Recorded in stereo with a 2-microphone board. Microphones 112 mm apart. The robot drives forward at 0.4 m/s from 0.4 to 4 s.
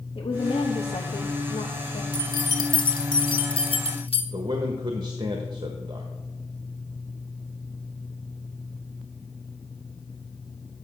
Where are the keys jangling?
35° left (ahead or behind), 1.8 m; by 4.2 s 55° left (ahead or behind), 1.3 m.